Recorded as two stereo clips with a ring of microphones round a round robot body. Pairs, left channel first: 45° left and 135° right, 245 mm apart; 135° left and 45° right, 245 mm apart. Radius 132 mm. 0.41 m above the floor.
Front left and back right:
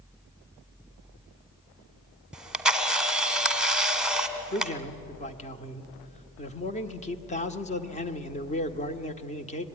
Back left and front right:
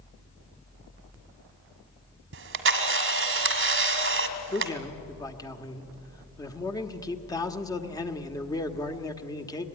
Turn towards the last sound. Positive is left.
turn(degrees=75)